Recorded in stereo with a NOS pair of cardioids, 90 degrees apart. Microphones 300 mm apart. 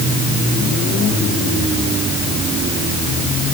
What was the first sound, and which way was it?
Only background noise.